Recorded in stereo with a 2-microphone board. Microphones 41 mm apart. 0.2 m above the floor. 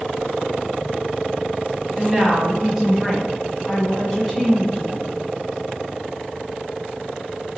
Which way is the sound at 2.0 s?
20° right (ahead or behind).